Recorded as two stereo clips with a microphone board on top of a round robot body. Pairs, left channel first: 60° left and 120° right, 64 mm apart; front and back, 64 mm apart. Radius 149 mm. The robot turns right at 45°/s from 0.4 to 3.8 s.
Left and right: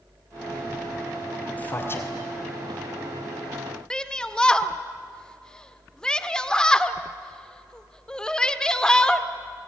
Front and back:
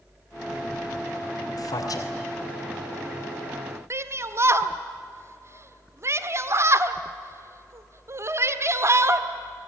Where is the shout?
140° left, 1.7 m.